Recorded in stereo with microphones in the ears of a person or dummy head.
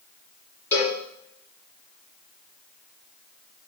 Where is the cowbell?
15° left (ahead or behind), 6.5 m.